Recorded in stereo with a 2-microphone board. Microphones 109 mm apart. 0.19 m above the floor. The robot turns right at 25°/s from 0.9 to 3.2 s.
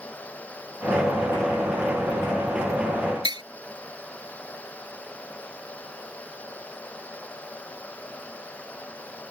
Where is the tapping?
45° right (ahead or behind).